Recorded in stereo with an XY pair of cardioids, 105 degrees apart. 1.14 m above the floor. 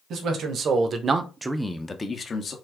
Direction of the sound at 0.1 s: 65° right.